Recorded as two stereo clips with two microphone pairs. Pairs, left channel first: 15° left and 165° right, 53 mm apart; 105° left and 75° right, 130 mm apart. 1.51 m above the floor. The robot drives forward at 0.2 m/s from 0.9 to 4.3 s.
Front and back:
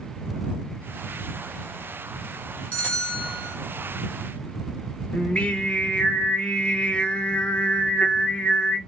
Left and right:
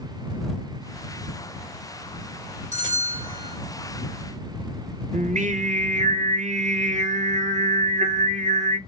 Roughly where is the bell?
Ahead right.